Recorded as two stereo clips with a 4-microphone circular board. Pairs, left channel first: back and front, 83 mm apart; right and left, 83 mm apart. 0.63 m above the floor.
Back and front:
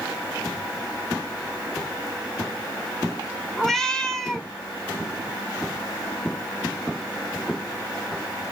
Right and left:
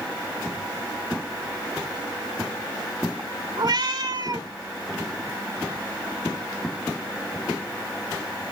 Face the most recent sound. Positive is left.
turn(degrees=95)